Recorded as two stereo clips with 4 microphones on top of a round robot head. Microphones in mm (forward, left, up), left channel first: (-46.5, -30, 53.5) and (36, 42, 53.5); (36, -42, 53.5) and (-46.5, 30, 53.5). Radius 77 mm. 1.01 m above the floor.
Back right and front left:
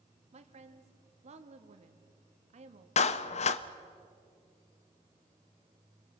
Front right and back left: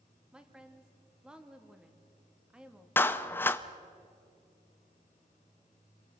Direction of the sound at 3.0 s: 110° right.